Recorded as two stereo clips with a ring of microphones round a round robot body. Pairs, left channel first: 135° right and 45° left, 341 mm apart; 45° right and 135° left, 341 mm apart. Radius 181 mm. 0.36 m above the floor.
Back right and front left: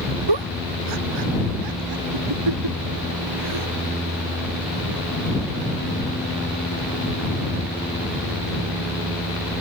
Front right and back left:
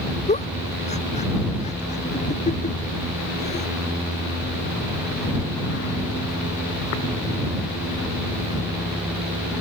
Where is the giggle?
25° left.